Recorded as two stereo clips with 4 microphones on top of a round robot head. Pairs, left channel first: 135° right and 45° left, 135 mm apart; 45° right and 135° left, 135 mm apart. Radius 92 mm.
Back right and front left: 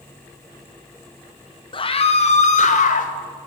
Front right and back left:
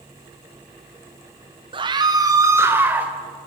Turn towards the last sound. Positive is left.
turn(degrees=-145)